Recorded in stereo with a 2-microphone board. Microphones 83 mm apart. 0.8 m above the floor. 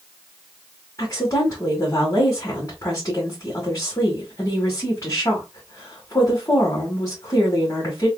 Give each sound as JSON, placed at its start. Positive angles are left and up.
{"t": 1.0, "sound": "a woman speaking", "side_deg": 45, "distance_m": 1.9}